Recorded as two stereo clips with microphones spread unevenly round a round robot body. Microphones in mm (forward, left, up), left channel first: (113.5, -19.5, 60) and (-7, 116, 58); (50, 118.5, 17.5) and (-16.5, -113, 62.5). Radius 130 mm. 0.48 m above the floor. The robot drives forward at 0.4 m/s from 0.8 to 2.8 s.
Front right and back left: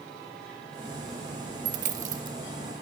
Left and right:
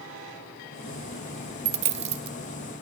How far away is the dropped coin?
About 0.6 m.